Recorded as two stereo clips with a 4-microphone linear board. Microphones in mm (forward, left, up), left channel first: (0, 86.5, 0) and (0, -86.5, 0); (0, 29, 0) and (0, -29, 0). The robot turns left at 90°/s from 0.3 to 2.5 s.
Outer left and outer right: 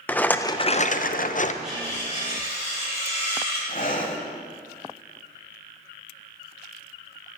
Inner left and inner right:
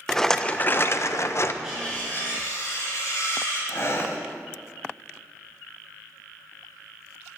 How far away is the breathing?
About 1.3 m.